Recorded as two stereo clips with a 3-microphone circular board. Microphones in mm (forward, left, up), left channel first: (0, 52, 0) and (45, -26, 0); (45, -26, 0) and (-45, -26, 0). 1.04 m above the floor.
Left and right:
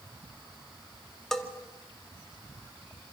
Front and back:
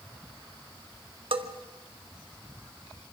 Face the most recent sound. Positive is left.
turn(degrees=-155)